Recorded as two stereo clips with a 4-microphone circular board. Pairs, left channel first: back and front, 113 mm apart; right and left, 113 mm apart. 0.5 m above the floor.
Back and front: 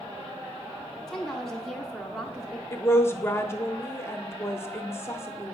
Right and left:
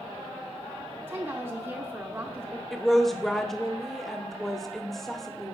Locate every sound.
1.1 s a woman speaking: 100° left, 0.8 m
2.7 s a woman speaking: 175° right, 0.7 m